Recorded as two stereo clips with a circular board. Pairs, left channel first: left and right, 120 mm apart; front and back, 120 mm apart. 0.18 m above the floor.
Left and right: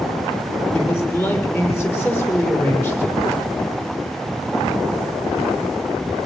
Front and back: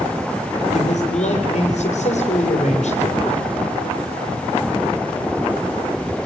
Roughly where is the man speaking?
Ahead.